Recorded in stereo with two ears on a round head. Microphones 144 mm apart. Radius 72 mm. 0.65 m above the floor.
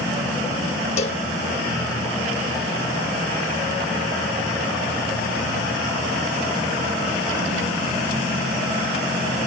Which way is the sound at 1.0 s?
40° left (ahead or behind).